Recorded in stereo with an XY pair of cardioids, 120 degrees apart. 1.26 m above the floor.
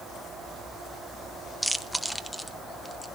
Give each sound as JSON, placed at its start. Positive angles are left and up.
{"t": 1.6, "sound": "chewing", "azimuth_deg": 0, "distance_m": 0.9}